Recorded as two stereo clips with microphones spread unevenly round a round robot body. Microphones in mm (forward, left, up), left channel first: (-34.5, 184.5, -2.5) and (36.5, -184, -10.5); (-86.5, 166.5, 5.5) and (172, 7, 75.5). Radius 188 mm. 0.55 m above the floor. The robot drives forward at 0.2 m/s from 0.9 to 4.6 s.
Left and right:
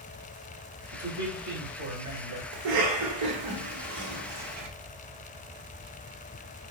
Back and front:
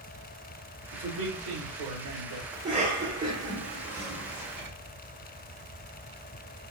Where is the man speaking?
40° right, 2.5 m; by 2.4 s 45° right, 2.5 m.